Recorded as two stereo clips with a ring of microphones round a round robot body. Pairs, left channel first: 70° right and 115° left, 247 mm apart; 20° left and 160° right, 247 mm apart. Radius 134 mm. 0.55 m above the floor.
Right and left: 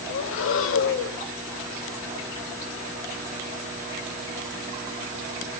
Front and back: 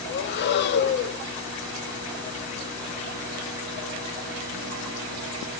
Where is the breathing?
25° right, 0.7 m.